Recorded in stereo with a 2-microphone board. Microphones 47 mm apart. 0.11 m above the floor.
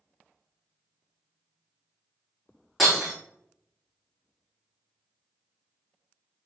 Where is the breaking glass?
5° left (ahead or behind), 2.5 m.